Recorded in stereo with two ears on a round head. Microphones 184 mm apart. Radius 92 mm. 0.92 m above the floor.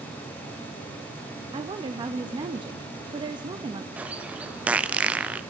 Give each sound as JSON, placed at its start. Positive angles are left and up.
{"t": 1.5, "sound": "a woman speaking", "side_deg": -25, "distance_m": 0.8}
{"t": 4.0, "sound": "a bird", "side_deg": -5, "distance_m": 0.7}